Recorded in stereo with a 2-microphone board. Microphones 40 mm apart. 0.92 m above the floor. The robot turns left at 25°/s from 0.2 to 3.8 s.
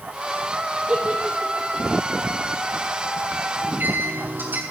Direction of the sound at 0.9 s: 15° right (ahead or behind).